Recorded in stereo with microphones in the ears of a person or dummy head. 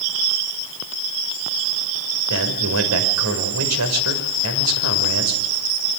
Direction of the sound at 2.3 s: 80° right.